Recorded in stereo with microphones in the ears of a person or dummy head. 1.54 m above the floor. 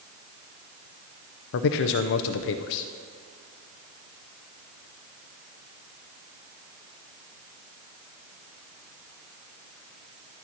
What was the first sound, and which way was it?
A man speaking, 50° left (ahead or behind).